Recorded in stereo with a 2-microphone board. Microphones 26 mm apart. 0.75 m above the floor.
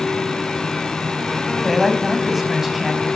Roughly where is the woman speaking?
Centre.